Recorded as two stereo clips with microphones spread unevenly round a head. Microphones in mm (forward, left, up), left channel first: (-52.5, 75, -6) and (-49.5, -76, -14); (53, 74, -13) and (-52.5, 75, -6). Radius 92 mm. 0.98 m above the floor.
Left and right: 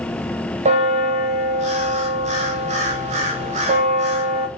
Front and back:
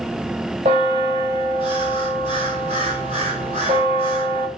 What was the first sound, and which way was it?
A bell, 130° right.